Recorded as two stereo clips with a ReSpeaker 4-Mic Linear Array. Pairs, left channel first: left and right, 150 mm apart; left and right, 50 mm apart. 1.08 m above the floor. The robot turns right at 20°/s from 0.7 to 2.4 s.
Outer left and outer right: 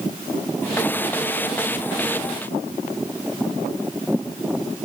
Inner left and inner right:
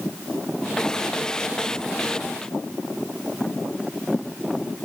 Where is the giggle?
I don't hear a giggle.